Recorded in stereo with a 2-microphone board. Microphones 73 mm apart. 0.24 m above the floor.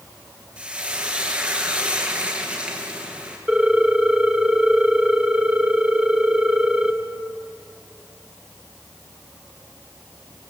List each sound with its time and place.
0.6 s frying: 15° right (ahead or behind), 4.5 m
3.5 s a ringtone: 10° right (ahead or behind), 1.7 m